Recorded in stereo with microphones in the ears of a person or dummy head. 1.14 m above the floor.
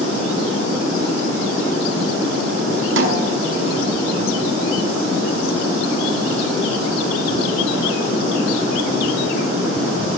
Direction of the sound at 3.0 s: 80° right.